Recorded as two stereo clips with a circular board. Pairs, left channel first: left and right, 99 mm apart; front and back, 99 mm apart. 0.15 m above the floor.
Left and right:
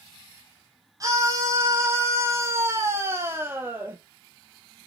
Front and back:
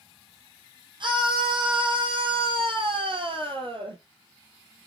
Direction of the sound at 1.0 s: 145° right.